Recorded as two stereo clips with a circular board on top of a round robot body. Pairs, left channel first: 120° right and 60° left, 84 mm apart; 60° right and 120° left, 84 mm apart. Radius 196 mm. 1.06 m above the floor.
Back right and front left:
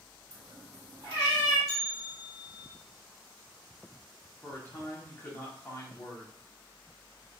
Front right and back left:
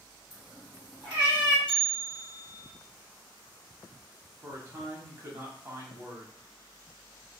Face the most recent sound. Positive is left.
turn(degrees=170)